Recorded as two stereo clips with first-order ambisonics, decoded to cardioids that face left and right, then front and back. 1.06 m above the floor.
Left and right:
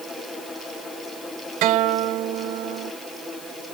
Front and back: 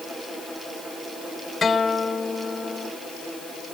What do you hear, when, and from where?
1.6 s a guitar: 75° right